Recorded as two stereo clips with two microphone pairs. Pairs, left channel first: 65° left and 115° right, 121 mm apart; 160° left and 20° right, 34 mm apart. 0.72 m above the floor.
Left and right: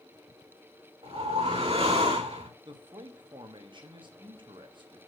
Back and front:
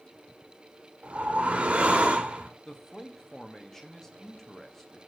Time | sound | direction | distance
1.0 | a whoosh | 75° right | 1.5 m
2.6 | a man speaking | 130° right | 1.3 m